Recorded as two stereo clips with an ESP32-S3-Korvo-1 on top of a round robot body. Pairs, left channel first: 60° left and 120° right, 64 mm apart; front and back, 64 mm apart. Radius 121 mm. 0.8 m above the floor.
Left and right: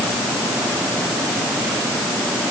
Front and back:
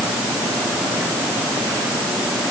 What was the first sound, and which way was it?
Only background noise.